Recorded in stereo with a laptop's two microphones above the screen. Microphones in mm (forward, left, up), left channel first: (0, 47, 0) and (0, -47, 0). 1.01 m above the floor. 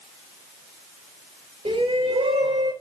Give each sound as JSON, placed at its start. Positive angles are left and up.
{"t": 1.6, "sound": "a shout", "side_deg": -80, "distance_m": 6.0}